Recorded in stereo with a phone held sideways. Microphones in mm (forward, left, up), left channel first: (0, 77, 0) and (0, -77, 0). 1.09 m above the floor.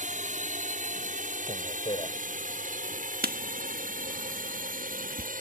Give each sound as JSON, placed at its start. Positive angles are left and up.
{"t": 0.0, "sound": "a drone", "side_deg": -55}
{"t": 1.5, "sound": "a man speaking", "side_deg": 35}
{"t": 3.2, "sound": "writing", "side_deg": -80}